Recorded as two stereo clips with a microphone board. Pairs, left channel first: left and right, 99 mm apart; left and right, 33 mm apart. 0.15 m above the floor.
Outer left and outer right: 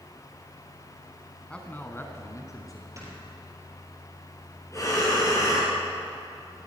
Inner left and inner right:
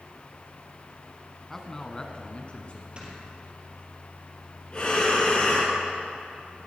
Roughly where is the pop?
No pop in this recording.